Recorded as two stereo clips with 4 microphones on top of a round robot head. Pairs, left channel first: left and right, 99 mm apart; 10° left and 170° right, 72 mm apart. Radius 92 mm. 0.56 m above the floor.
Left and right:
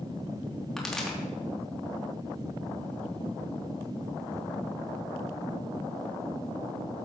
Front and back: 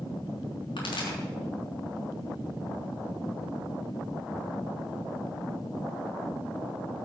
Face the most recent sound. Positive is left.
turn(degrees=5)